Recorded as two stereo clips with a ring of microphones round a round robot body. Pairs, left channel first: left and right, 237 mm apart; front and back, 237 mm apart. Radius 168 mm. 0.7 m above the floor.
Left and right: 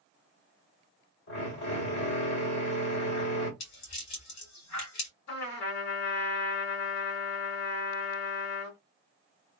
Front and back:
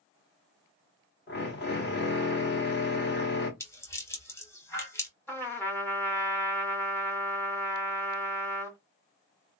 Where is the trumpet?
80° left, 2.0 m.